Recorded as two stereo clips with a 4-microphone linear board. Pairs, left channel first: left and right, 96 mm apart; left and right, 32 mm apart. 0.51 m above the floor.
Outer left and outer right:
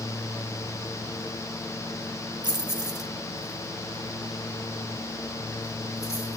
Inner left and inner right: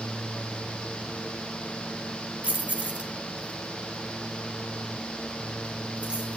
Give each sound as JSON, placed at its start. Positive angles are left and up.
{"t": 2.4, "sound": "keys jangling", "side_deg": -50, "distance_m": 0.9}